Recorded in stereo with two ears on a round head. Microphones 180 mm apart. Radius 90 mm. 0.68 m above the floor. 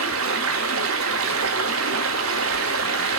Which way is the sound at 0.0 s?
85° right.